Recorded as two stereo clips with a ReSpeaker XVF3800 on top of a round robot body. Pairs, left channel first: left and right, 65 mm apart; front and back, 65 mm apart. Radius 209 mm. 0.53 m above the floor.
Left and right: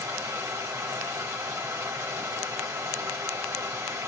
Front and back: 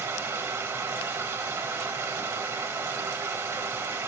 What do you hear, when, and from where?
0.0 s running water: 130° right, 2.0 m